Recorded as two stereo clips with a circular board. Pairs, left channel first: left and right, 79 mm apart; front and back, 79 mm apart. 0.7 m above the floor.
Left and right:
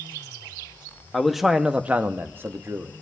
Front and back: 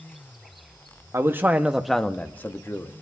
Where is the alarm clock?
No alarm clock in this recording.